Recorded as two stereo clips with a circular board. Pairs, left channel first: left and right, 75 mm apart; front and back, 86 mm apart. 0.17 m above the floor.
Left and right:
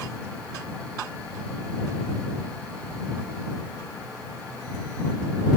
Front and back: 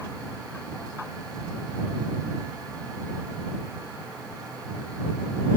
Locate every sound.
Only background noise.